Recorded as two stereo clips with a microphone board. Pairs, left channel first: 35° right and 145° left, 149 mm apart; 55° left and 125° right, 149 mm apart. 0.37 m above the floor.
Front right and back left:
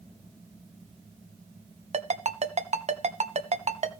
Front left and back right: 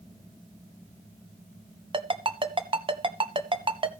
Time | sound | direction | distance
1.9 | a ringtone | 175° right | 1.2 m